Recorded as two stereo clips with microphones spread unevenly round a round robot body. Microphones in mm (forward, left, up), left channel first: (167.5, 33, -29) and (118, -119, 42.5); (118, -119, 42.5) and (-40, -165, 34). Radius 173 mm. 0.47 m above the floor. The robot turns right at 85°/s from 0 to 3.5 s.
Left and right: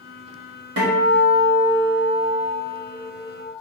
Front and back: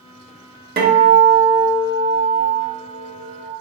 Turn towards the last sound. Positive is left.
turn(degrees=95)